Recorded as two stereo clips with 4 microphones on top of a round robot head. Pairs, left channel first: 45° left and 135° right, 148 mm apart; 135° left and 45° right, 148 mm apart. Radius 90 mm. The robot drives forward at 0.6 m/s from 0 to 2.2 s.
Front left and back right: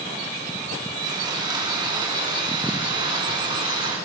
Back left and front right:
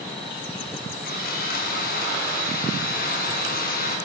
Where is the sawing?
160° left, 6 m.